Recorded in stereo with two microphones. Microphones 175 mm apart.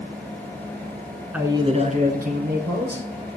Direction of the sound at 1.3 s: 10° right (ahead or behind).